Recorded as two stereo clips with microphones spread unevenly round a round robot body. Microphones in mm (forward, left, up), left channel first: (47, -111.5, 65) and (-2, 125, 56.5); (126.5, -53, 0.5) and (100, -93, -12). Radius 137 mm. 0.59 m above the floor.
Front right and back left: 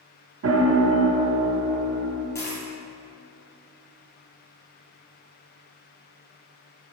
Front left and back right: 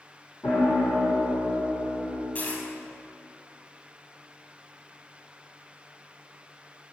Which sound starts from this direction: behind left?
A piano, at 0.4 s.